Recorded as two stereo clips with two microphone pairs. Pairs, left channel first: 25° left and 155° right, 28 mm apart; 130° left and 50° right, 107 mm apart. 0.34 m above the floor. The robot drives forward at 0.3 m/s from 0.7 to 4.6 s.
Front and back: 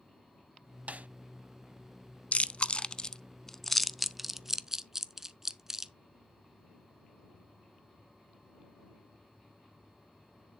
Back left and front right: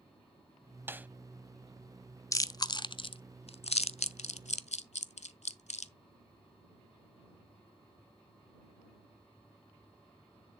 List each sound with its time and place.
0.9 s a snare drum: 115° right, 0.5 m; by 1.1 s 120° right, 0.5 m
2.3 s chewing: 70° left, 0.6 m; by 5.9 s 130° left, 0.7 m